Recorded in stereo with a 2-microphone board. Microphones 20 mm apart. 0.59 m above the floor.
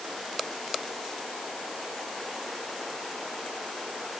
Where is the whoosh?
No whoosh in this recording.